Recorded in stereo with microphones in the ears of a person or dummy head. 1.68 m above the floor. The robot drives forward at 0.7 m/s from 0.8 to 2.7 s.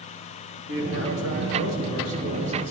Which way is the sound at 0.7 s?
60° right (ahead or behind).